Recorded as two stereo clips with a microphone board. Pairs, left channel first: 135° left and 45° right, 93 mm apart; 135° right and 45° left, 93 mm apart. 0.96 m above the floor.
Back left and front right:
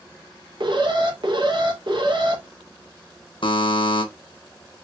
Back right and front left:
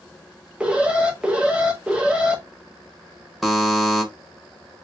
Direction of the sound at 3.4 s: 135° left.